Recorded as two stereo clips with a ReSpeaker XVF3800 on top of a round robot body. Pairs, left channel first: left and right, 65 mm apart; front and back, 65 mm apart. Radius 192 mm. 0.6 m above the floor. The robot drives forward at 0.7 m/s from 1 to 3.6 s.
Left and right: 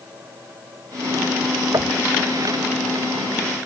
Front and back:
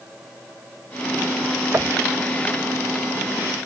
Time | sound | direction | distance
1.7 | knocking | 125° right | ?